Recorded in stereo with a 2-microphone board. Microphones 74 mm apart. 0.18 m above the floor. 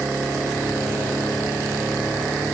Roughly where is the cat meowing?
I don't hear a cat meowing.